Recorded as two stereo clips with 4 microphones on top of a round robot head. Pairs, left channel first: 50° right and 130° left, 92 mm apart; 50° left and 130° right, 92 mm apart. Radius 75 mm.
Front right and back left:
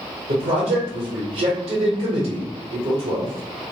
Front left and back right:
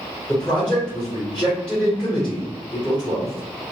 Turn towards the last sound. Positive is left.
turn(degrees=130)